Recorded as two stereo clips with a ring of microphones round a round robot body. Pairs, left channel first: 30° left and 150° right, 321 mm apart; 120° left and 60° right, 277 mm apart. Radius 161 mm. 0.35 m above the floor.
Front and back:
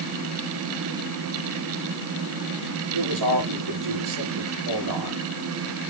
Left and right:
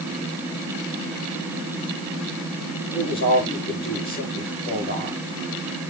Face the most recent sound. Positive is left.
turn(degrees=-175)